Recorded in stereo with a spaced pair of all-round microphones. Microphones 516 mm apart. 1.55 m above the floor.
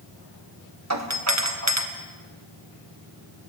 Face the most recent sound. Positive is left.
turn(degrees=-30)  # may be behind; listen again after turning